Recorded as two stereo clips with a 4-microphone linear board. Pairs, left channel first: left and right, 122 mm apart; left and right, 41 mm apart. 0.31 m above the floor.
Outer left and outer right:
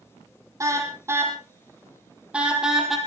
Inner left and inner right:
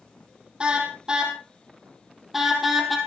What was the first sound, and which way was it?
A car horn, 25° right (ahead or behind).